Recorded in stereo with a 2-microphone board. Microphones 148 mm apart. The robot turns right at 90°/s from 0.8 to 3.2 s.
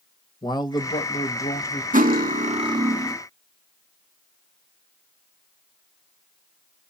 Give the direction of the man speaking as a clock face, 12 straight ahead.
11 o'clock.